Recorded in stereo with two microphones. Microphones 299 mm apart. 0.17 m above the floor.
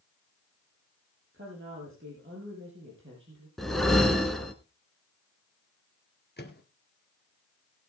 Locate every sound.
1.3 s a woman speaking: 40° right (ahead or behind), 5.5 m
3.6 s a whoosh: centre (ahead or behind), 1.6 m
6.4 s a microwave: 35° left (ahead or behind), 2.5 m